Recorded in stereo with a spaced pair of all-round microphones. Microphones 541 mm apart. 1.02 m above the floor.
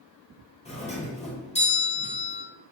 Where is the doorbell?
15° left (ahead or behind), 0.6 m.